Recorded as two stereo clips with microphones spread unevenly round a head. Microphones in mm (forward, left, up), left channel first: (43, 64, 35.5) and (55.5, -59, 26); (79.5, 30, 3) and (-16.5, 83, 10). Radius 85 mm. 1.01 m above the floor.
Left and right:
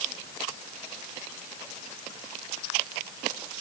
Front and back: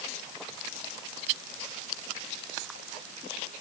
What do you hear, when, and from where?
Only background noise.